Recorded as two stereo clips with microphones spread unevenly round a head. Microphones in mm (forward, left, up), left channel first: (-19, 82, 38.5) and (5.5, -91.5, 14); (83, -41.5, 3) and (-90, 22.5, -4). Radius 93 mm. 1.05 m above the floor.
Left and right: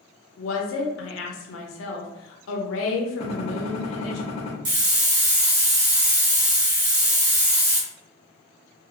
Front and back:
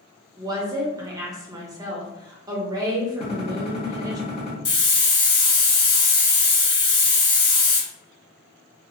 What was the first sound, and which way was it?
A woman speaking, 90° left.